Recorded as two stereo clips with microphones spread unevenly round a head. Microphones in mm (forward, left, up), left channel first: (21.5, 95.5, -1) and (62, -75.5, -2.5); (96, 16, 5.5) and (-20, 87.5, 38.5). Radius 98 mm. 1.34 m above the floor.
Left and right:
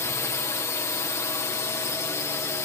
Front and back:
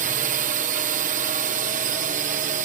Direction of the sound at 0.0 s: 175° left.